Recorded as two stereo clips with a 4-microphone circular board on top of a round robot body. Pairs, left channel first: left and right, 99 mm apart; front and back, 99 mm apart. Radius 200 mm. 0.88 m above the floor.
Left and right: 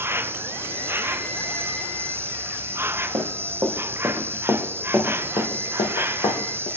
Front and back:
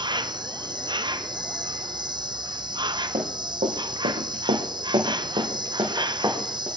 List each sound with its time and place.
0.0 s an insect: 150° right, 0.8 m
3.1 s running footsteps: 150° right, 2 m; by 6.7 s 115° left, 2.5 m